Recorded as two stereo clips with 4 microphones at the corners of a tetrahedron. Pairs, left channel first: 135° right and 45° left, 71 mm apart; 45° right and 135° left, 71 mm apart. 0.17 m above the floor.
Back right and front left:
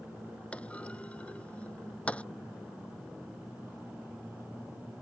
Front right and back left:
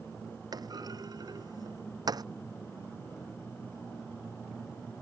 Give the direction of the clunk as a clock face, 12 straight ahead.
7 o'clock.